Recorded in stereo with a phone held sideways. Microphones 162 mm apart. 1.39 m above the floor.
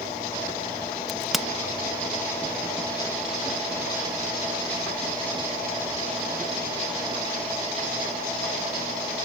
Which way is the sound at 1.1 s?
Centre (ahead or behind).